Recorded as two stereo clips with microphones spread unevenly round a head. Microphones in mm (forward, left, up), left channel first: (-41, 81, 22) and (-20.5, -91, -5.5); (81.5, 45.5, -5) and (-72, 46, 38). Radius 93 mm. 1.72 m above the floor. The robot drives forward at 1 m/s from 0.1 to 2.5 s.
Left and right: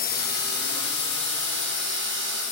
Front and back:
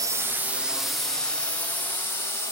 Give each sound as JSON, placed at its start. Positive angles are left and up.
{"t": 0.0, "sound": "a drone", "azimuth_deg": 105}